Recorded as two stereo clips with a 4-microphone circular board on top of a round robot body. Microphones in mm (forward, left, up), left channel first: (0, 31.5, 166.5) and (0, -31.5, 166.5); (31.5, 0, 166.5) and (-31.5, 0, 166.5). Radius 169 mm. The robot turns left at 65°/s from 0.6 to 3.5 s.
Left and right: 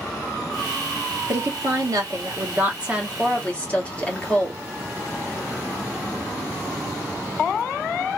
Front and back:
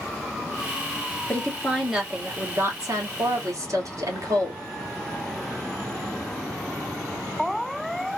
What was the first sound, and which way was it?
A woman speaking, 60° right.